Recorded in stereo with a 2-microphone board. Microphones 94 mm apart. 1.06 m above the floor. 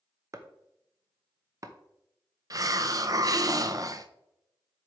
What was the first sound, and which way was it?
Chopping, 40° right (ahead or behind).